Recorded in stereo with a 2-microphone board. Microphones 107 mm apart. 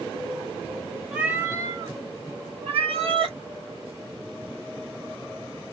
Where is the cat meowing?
10° right (ahead or behind), 0.9 m; by 3.4 s 60° right (ahead or behind), 1.3 m.